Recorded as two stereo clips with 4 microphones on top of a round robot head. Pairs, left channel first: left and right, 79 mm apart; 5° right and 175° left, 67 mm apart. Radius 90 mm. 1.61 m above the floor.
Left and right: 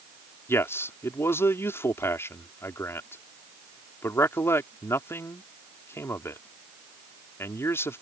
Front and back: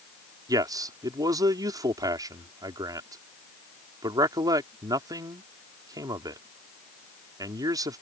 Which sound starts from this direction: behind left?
A man speaking, at 0.5 s.